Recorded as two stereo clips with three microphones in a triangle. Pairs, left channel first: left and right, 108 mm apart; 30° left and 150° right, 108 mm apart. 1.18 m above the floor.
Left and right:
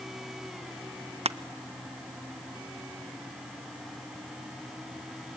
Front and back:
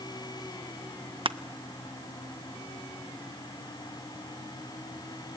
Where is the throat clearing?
No throat clearing in this recording.